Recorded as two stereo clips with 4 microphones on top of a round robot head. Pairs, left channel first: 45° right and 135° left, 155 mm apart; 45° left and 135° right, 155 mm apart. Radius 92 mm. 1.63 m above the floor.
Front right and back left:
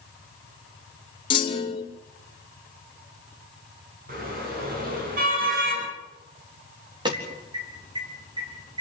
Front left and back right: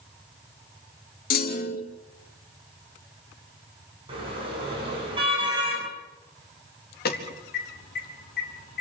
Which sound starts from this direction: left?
An alarm, at 7.0 s.